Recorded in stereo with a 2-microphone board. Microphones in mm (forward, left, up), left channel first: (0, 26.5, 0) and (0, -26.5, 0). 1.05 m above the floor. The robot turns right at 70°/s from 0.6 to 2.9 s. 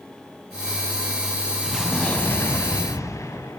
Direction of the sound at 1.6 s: 10° right.